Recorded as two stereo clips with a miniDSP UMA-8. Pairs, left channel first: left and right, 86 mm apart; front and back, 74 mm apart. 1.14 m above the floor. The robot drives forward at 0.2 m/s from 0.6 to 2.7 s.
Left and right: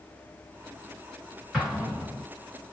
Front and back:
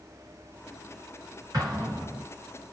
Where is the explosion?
175° right, 1.4 m.